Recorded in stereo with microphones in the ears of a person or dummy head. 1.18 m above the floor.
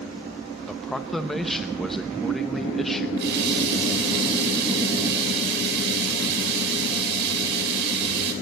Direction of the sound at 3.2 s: 60° right (ahead or behind).